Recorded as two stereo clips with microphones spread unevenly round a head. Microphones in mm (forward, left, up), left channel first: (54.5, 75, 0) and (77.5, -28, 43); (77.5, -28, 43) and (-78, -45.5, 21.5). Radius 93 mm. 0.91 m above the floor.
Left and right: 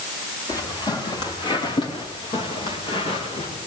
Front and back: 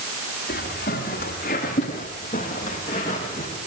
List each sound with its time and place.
0.5 s footsteps: 50° left, 8 m; by 3.6 s 75° left, 8.5 m